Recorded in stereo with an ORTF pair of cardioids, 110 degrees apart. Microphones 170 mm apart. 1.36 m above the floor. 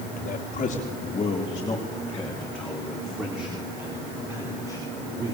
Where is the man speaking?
50° left, 3.5 m; by 5.3 s 20° right, 6 m.